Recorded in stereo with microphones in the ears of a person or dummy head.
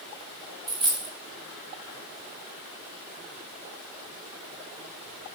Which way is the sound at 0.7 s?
25° right (ahead or behind).